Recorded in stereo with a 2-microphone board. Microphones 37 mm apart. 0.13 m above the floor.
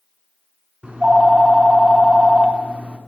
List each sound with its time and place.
0.8 s a phone ringing: 30° right (ahead or behind), 1.1 m